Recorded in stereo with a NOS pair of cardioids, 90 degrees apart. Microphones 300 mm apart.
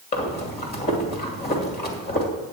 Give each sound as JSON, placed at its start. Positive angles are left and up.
{"t": 0.1, "sound": "breathing", "azimuth_deg": 35, "distance_m": 2.5}